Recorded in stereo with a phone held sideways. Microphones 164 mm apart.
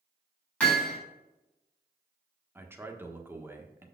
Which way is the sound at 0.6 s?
5° left (ahead or behind).